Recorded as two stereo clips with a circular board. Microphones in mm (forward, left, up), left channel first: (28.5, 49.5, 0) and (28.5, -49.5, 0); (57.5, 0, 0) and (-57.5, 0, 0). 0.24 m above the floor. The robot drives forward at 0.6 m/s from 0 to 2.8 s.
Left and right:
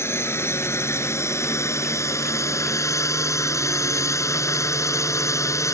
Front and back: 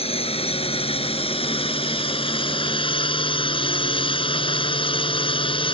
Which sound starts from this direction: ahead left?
A drone, at 0.0 s.